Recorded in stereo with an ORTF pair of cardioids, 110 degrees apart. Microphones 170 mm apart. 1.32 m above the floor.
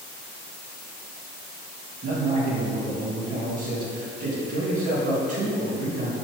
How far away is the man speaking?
About 2 m.